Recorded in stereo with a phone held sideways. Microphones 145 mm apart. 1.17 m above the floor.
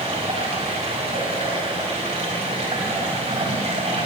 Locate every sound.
0.0 s running water: 50° right (ahead or behind), 5 m